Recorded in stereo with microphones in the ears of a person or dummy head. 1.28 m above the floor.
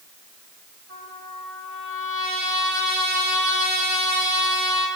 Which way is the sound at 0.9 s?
60° right (ahead or behind).